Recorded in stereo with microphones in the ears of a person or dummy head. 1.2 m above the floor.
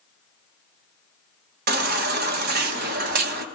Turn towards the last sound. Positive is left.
turn(degrees=-45)  # may be behind; listen again after turning